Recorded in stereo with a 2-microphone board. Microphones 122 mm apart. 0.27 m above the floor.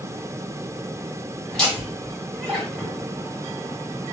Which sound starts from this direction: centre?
Laughter, at 1.5 s.